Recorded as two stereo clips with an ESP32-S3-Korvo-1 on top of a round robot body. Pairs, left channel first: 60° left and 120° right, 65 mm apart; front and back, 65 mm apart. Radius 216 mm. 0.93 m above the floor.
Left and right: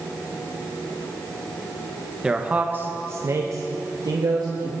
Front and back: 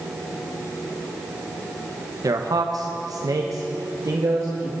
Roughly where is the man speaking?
Behind.